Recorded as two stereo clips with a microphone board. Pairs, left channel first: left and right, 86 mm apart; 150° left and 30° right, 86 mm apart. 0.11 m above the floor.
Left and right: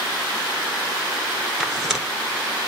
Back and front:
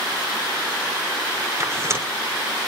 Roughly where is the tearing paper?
Ahead.